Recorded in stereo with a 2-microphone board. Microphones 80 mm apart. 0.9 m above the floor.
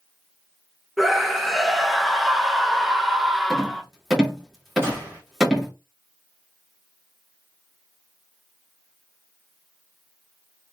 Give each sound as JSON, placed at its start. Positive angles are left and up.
{"t": 1.0, "sound": "a scream", "side_deg": 0, "distance_m": 0.9}
{"t": 3.5, "sound": "a rattle", "side_deg": -5, "distance_m": 2.0}
{"t": 4.8, "sound": "a gunshot", "side_deg": -35, "distance_m": 2.5}